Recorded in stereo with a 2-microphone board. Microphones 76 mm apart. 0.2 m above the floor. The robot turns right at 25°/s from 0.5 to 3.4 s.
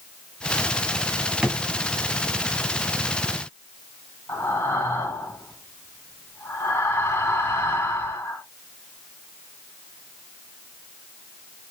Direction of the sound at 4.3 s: 35° left (ahead or behind).